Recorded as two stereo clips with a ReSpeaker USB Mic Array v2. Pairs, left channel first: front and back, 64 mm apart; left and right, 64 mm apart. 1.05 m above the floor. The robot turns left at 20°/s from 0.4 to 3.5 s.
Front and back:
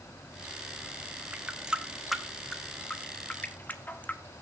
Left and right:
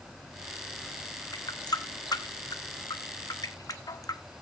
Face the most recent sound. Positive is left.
turn(degrees=65)